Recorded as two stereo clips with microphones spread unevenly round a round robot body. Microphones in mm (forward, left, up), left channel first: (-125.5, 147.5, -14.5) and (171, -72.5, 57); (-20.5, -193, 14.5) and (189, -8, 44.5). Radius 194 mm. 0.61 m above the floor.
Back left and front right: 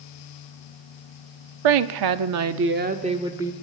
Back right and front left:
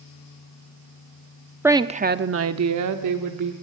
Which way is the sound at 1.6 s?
45° right.